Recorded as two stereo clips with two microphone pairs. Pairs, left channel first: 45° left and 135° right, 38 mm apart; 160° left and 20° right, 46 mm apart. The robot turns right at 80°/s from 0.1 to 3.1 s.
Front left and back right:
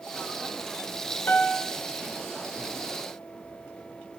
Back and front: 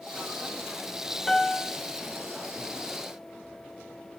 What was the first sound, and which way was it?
A piano, 75° left.